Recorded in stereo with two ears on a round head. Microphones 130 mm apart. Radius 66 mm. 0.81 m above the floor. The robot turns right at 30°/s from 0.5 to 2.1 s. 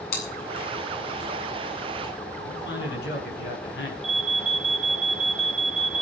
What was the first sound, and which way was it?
Chewing, 75° left (ahead or behind).